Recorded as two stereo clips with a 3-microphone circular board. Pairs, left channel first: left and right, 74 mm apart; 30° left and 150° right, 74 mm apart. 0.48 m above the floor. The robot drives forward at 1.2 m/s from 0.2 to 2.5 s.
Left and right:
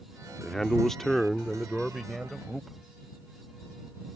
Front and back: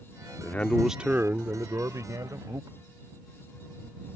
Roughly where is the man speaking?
Ahead.